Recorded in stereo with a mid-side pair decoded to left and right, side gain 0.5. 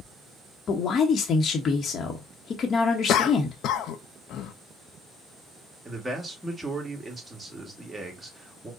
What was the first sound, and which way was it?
A man speaking, 45° left.